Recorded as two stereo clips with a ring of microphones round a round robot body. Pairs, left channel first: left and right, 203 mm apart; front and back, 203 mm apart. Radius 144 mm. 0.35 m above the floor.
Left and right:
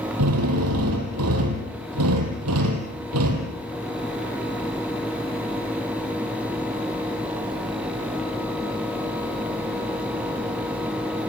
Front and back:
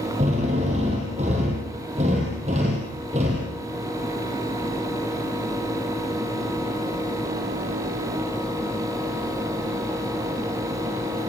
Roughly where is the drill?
Right.